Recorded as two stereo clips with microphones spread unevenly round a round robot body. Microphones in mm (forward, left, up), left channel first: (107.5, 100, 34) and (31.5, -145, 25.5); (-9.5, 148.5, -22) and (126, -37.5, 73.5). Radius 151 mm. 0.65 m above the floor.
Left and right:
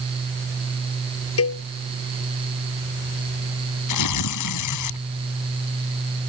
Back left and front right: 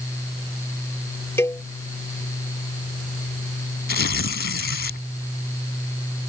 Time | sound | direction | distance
1.4 | a cowbell | 45° left | ?
3.9 | tearing paper | 85° left | ?